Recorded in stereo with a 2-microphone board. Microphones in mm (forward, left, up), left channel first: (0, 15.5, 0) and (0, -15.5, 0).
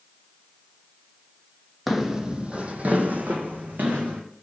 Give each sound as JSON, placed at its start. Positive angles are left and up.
{"t": 1.9, "sound": "footsteps", "side_deg": -5, "distance_m": 0.6}